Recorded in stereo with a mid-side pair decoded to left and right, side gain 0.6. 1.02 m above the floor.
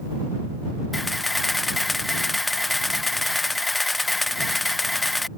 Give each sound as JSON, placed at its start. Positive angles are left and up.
{"t": 0.9, "sound": "a camera shutter", "azimuth_deg": 15}